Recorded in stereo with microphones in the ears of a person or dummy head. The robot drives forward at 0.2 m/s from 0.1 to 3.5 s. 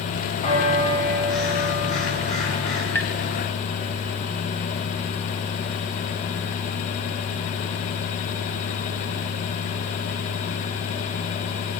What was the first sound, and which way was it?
A bell, 35° left (ahead or behind).